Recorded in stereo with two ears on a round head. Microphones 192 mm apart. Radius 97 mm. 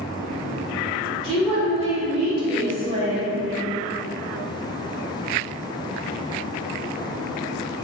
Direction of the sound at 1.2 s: 30° right (ahead or behind).